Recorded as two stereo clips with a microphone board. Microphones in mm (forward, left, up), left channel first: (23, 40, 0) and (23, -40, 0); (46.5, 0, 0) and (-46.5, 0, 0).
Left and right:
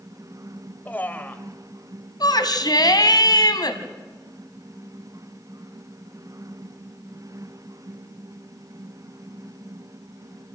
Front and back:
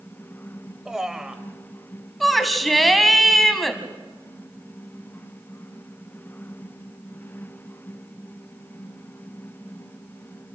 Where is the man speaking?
105° left, 0.9 m.